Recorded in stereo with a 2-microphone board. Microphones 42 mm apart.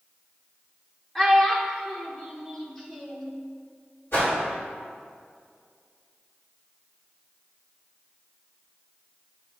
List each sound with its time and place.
1.1 s a child speaking: 10° left (ahead or behind), 0.8 m
4.1 s a whoosh: 70° left (ahead or behind), 2 m